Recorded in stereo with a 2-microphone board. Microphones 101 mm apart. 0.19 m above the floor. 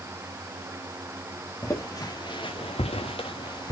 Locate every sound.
1.6 s footsteps: 30° left (ahead or behind), 1.6 m; by 3.7 s 40° left (ahead or behind), 1.2 m